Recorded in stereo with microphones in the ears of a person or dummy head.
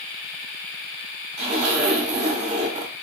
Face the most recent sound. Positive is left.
turn(degrees=-40)  # may be behind; listen again after turning